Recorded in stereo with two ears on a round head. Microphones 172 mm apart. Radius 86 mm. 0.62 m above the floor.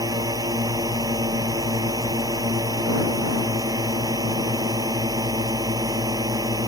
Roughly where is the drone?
Centre.